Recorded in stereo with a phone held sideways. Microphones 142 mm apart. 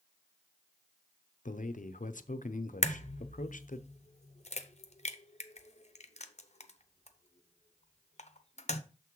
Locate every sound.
1.4 s a man speaking: 65° left (ahead or behind), 0.6 m
2.8 s a crack: 50° left (ahead or behind), 0.7 m